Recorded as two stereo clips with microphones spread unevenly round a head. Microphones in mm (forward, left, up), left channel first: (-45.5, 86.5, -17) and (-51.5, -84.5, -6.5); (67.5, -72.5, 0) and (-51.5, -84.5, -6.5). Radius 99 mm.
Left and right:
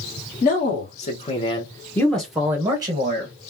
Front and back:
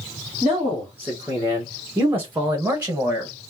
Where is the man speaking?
110° left, 1.5 m; by 3.3 s 115° right, 1.0 m.